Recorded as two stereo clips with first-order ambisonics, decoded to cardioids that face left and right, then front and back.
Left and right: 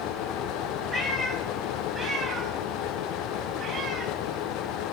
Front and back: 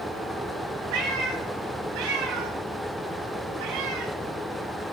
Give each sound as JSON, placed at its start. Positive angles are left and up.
{"t": 0.9, "sound": "a cat meowing", "azimuth_deg": 180, "distance_m": 3.5}